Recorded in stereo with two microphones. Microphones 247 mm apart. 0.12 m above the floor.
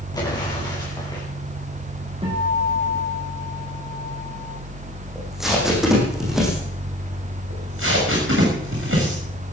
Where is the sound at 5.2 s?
Centre (ahead or behind), 6 m.